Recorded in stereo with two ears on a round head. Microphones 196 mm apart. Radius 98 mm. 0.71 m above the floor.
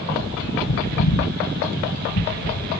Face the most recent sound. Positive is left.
turn(degrees=90)